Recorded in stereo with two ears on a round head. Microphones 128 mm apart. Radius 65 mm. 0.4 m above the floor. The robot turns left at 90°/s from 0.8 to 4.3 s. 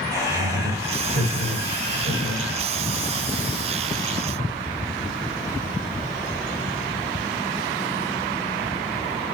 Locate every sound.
0.1 s laughter: 25° right, 2 m; by 2.6 s 170° left, 2 m